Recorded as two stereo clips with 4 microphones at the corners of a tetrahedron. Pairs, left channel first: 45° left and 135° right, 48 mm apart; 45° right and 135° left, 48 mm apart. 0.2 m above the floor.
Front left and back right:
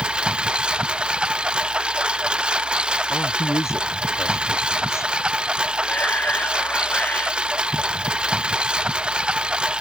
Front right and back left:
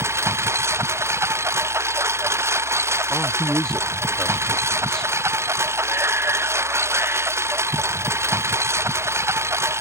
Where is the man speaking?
35° left.